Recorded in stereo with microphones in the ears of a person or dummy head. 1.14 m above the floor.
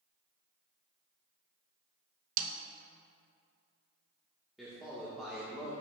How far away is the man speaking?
About 1.4 m.